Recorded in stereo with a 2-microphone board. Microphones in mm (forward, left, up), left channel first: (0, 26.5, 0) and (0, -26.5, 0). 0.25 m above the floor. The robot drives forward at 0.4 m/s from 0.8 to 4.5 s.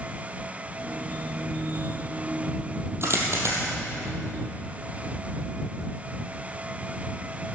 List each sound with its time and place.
3.0 s a dropped coin: 55° right (ahead or behind), 3.5 m